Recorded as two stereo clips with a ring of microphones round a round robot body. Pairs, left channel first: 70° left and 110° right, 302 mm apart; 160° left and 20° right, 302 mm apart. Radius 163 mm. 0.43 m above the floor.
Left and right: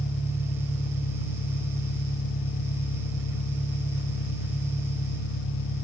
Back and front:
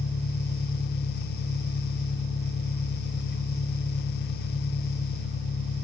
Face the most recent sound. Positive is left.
turn(degrees=110)